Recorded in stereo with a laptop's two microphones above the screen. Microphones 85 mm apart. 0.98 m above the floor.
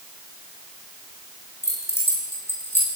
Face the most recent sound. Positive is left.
turn(degrees=25)  # may be behind; listen again after turning